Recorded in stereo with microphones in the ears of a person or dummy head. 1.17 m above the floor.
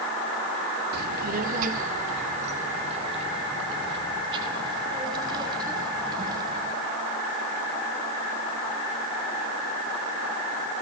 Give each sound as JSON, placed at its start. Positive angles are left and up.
{"t": 0.9, "sound": "a child speaking", "side_deg": -55, "distance_m": 1.7}